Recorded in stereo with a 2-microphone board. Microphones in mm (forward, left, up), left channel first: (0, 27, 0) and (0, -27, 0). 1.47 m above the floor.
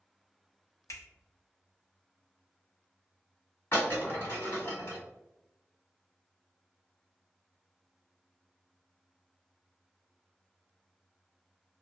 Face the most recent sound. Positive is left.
turn(degrees=45)  # may be behind; listen again after turning